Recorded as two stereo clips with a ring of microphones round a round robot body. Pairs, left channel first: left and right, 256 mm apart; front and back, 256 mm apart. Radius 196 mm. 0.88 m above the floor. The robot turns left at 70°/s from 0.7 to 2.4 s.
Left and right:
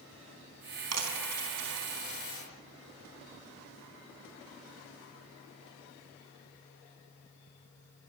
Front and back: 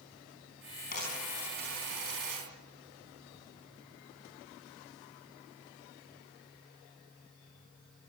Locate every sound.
0.9 s a dropped coin: 65° right, 4.5 m; by 2.4 s 170° right, 4.5 m